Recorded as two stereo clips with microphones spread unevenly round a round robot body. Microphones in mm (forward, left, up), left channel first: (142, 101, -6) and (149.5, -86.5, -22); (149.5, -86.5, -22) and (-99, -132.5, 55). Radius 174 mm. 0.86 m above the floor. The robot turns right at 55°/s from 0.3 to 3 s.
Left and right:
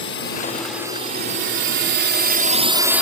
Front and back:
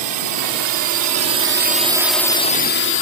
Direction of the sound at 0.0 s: 150° left.